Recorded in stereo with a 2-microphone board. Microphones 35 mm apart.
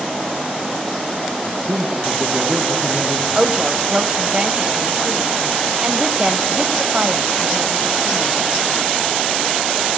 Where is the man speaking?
45° right (ahead or behind), 3.5 m.